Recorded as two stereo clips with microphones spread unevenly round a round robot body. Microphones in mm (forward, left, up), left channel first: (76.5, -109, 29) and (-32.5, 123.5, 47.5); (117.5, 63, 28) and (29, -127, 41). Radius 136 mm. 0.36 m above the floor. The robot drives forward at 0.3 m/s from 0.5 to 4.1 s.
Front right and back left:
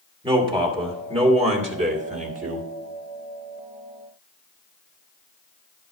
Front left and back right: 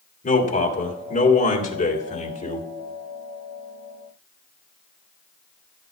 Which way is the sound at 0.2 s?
45° left.